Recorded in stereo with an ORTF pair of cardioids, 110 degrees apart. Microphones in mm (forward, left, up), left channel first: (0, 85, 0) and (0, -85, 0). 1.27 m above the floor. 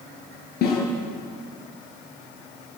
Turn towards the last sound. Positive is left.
turn(degrees=65)